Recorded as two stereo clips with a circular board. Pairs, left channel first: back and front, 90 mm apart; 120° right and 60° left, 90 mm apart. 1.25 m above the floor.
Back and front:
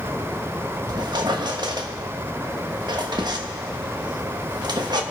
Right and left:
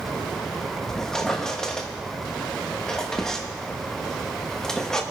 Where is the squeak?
35° right, 1.2 m.